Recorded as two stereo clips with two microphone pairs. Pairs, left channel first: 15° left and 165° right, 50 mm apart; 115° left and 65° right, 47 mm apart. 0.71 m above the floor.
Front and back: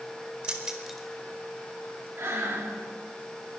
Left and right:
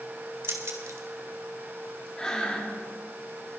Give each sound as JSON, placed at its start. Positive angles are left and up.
{"t": 0.4, "sound": "keys jangling", "azimuth_deg": -95, "distance_m": 1.6}
{"t": 2.2, "sound": "breathing", "azimuth_deg": -175, "distance_m": 1.8}